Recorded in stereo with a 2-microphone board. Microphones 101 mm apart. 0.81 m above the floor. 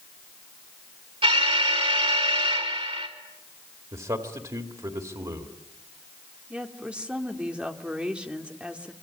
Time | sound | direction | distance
1.2 | an alarm | 65° right (ahead or behind) | 4 m
3.9 | a man speaking | 45° right (ahead or behind) | 2 m
6.5 | a woman speaking | 10° right (ahead or behind) | 2.5 m